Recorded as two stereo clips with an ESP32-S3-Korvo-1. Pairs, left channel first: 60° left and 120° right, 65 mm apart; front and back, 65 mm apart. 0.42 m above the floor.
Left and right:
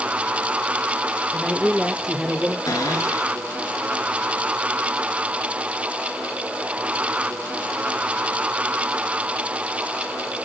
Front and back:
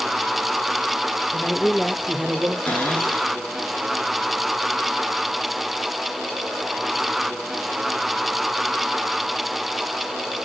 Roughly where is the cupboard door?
Ahead left.